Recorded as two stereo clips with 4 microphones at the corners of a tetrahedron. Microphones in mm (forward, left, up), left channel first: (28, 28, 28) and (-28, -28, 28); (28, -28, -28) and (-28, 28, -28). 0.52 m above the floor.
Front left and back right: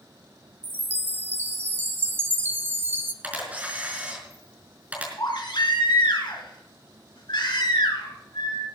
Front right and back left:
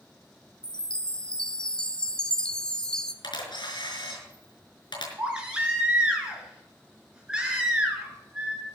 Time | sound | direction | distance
0.6 | a chime | 115° right | 1.0 m
3.2 | a camera shutter | 65° right | 5 m
5.2 | a baby crying | 55° left | 4 m